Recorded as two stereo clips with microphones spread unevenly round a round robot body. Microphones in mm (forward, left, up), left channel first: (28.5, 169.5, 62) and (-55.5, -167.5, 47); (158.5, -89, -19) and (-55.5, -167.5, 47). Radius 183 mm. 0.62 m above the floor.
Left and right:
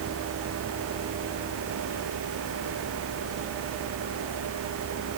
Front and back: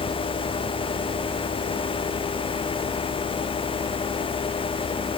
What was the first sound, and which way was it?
Only background noise.